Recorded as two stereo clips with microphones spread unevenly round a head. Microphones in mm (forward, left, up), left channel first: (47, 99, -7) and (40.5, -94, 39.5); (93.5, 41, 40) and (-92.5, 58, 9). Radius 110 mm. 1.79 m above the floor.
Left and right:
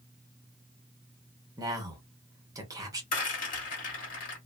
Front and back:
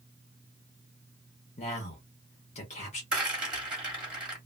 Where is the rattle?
75° left, 1.7 m.